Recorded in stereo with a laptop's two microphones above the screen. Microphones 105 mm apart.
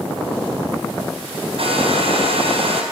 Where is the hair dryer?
65° right (ahead or behind), 4 m.